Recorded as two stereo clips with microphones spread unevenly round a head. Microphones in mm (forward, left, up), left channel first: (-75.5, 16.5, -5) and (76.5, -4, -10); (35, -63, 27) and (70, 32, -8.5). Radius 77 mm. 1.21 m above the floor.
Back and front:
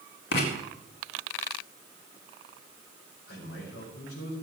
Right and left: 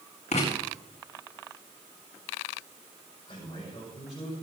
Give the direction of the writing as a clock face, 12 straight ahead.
5 o'clock.